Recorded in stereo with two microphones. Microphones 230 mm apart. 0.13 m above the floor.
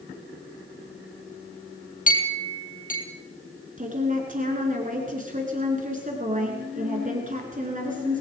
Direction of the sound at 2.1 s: 35° left (ahead or behind).